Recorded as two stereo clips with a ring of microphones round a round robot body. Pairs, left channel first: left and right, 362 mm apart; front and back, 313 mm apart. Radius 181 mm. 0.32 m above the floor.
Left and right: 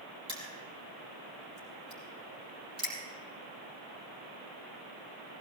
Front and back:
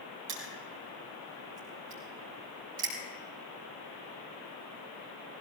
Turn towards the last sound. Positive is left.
turn(degrees=-165)